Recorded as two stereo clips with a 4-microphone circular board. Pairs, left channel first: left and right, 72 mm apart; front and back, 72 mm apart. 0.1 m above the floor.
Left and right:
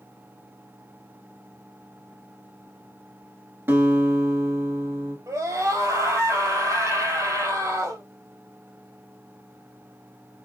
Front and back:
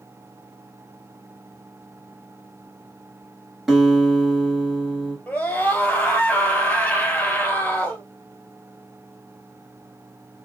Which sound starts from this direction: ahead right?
A scream, at 5.3 s.